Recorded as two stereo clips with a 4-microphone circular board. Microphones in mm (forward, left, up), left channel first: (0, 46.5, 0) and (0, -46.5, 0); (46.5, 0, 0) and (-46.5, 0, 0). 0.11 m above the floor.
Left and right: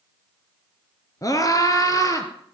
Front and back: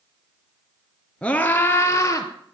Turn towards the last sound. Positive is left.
turn(degrees=45)